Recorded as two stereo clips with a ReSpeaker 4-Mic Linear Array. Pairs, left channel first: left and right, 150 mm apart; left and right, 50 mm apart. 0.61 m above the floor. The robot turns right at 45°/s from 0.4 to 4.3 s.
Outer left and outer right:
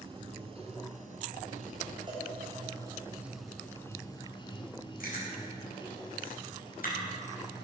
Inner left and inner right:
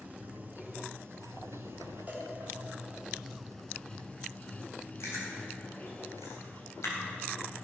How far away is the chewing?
About 3.5 m.